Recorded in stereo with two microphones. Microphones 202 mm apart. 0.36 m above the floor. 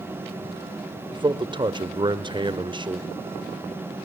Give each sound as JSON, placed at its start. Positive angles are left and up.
{"t": 1.1, "sound": "a man speaking", "side_deg": -25, "distance_m": 0.9}